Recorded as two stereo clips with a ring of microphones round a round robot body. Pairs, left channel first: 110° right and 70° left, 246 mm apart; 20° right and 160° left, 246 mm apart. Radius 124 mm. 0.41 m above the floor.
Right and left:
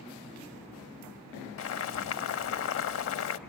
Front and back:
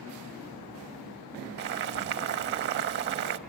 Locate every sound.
1.6 s boiling: 150° right, 0.6 m